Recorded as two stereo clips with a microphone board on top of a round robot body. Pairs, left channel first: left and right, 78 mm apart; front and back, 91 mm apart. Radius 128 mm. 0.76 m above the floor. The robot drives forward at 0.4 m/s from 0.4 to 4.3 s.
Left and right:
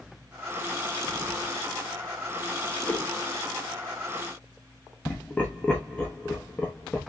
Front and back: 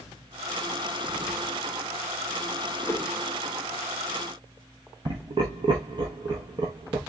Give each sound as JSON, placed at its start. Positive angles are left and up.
{"t": 2.9, "sound": "a whoosh", "azimuth_deg": 35, "distance_m": 1.1}
{"t": 5.0, "sound": "laughter", "azimuth_deg": 160, "distance_m": 0.8}